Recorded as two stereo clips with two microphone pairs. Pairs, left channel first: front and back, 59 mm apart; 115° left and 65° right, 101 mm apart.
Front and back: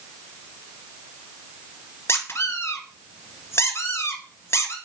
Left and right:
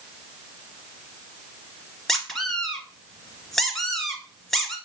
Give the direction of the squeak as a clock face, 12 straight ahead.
11 o'clock.